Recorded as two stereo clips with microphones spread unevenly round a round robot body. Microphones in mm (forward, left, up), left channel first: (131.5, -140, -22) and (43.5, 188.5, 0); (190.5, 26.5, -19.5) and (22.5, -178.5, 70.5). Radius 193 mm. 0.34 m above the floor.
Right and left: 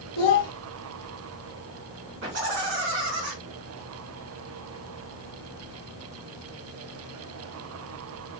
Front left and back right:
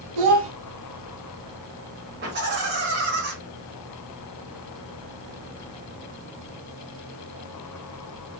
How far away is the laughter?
About 2.5 m.